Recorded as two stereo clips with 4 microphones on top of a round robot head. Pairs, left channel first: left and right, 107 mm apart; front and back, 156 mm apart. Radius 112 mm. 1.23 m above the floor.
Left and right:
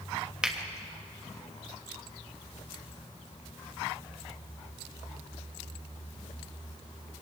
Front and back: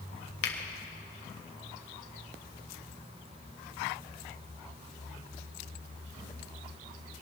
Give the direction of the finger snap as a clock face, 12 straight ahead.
12 o'clock.